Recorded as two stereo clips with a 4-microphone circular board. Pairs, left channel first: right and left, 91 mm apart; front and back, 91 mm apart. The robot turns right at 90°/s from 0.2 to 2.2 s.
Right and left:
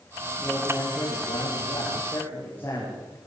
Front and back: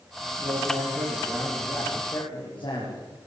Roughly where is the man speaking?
Behind.